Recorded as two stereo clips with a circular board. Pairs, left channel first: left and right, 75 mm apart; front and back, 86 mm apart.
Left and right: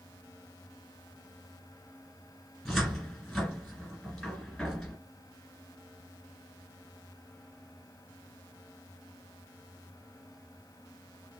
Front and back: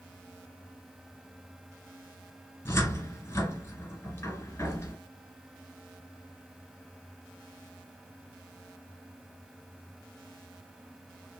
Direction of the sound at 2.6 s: Straight ahead.